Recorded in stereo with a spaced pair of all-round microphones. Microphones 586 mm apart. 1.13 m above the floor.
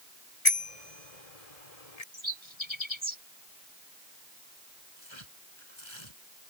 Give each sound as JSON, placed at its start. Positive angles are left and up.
{"t": 0.5, "sound": "a bicycle bell", "side_deg": 75}
{"t": 2.1, "sound": "a bird", "side_deg": -50}
{"t": 5.0, "sound": "tearing paper", "side_deg": 50}